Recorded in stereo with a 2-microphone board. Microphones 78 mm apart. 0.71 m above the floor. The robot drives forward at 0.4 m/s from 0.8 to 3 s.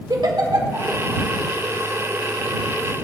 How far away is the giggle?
About 1.4 m.